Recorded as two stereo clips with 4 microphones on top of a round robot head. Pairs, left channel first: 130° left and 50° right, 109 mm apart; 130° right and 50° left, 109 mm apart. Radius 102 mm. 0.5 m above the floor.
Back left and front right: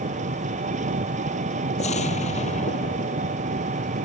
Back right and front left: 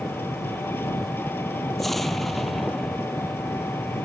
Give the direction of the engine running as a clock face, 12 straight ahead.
2 o'clock.